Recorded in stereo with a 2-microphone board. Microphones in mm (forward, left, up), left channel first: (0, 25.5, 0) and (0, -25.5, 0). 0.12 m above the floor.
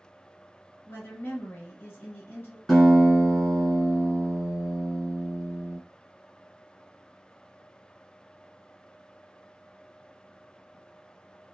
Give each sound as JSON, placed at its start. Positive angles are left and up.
{"t": 0.9, "sound": "a woman speaking", "side_deg": 45, "distance_m": 1.4}
{"t": 2.7, "sound": "a guitar", "side_deg": 10, "distance_m": 2.0}